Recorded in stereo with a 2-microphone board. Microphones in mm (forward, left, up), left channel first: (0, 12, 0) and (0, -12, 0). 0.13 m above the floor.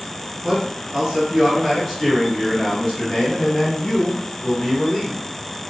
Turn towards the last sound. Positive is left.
turn(degrees=30)  # may be behind; listen again after turning